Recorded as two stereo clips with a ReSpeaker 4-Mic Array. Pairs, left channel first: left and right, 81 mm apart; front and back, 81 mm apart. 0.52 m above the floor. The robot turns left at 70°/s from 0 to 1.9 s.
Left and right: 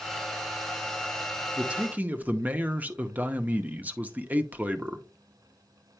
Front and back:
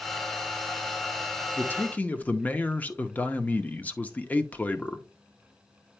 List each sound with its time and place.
1.6 s a man speaking: 25° right, 0.7 m; by 5.0 s 45° right, 0.7 m